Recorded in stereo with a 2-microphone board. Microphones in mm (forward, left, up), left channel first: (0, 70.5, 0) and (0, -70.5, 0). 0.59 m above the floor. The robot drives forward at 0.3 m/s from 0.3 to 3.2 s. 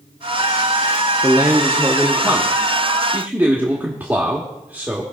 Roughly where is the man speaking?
Centre.